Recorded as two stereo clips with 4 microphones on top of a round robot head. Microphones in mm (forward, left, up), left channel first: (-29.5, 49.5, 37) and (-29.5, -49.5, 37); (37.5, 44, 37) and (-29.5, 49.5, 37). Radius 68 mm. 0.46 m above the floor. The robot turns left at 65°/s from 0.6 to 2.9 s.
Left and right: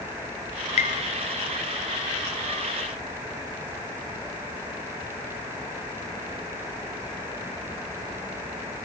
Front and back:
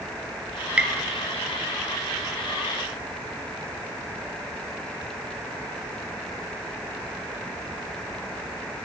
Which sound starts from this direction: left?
Tapping, at 0.8 s.